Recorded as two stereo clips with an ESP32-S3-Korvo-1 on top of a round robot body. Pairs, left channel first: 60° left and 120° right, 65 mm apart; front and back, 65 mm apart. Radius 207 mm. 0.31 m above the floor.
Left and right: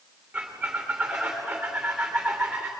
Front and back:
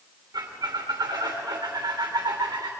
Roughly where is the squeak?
Behind.